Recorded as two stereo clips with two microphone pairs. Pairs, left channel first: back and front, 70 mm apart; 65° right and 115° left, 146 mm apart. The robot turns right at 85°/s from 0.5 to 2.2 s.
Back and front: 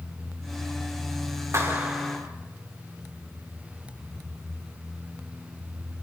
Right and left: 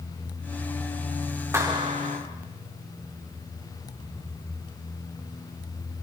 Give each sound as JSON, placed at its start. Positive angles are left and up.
{"t": 1.5, "sound": "a clap", "azimuth_deg": 45, "distance_m": 4.5}